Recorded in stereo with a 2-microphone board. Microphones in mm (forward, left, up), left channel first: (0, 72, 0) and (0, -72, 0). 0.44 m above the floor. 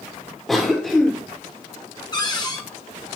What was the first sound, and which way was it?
A cough, centre (ahead or behind).